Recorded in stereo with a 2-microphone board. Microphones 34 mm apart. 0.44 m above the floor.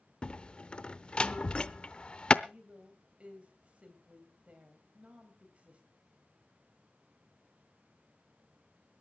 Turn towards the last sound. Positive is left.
turn(degrees=-40)  # may be behind; listen again after turning